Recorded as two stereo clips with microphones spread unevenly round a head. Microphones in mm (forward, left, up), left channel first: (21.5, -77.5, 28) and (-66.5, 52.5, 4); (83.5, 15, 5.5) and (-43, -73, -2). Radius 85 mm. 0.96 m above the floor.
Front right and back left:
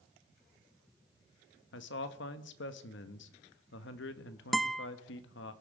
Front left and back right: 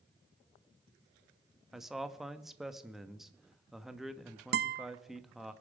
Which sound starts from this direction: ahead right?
A man speaking, at 1.7 s.